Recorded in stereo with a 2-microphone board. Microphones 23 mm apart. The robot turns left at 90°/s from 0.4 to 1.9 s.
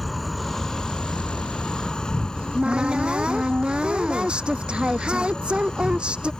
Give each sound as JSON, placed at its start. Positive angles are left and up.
{"t": 0.0, "sound": "an insect", "azimuth_deg": 175}
{"t": 2.4, "sound": "a cupboard door", "side_deg": -50}